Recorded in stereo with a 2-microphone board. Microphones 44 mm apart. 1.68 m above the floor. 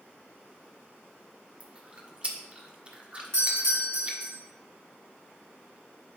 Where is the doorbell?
80° right, 4 m.